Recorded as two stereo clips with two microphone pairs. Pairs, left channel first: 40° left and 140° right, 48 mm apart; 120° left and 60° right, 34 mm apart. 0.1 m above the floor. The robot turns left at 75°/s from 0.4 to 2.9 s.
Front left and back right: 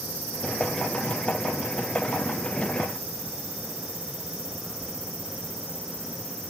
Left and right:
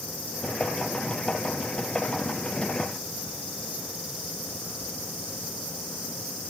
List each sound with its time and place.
Only background noise.